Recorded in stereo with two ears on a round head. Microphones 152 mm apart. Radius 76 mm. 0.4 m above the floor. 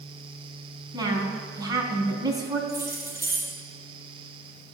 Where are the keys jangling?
20° right (ahead or behind), 6.5 m.